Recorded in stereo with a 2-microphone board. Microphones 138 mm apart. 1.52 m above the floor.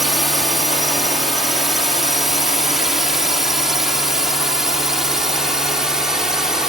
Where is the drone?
Centre (ahead or behind); by 6.7 s 5° right (ahead or behind).